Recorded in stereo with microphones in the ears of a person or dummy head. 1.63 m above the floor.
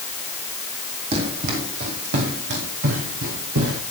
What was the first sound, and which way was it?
Running footsteps, 35° right (ahead or behind).